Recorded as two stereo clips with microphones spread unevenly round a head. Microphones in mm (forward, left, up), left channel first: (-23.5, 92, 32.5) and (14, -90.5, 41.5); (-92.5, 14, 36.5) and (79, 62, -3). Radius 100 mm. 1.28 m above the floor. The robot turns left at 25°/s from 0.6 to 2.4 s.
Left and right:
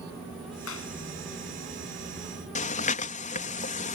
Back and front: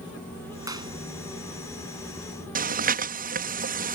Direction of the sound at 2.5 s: 50° left.